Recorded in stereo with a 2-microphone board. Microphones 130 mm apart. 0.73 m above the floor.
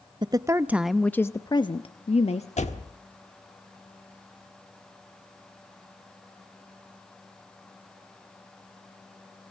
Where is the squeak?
No squeak in this recording.